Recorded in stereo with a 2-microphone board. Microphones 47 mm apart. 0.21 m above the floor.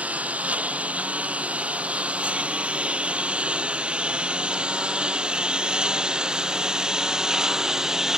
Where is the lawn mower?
30° right (ahead or behind); by 8.2 s 10° right (ahead or behind).